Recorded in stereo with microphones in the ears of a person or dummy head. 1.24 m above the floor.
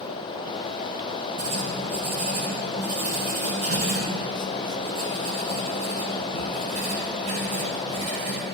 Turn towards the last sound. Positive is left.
turn(degrees=-40)  # may be behind; listen again after turning